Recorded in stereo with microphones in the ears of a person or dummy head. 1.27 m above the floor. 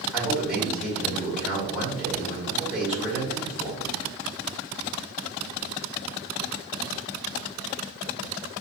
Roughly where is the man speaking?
Centre.